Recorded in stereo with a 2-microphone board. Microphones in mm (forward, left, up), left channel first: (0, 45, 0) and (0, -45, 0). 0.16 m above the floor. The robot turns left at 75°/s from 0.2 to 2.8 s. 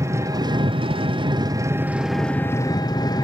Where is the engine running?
35° right, 0.8 m; by 3.2 s 130° left, 0.8 m.